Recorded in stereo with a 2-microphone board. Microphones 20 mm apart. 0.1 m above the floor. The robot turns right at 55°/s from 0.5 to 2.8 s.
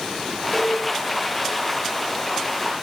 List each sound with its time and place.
0.5 s a cowbell: centre (ahead or behind), 10 m; by 0.8 s 15° left (ahead or behind), 10 m